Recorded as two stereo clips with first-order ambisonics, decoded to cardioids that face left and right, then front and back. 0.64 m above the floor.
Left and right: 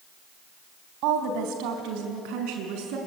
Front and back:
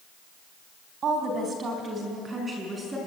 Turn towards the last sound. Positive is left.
turn(degrees=-100)